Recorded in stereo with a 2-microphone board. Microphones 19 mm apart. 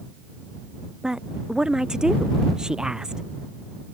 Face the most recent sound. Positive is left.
turn(degrees=-40)  # may be behind; listen again after turning